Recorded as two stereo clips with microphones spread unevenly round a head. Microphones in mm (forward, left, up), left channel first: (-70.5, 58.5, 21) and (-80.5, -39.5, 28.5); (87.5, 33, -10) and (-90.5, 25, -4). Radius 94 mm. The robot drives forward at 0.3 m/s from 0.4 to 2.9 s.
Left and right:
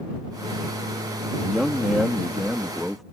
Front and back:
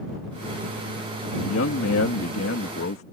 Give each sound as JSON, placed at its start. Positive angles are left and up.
{"t": 1.4, "sound": "a man speaking", "azimuth_deg": -10}